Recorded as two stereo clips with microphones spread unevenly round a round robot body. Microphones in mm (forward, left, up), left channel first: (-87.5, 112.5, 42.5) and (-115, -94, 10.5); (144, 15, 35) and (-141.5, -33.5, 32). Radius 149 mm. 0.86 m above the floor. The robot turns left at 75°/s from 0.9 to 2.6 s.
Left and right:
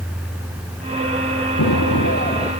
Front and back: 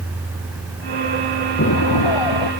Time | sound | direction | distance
1.6 | an explosion | 65° left | ?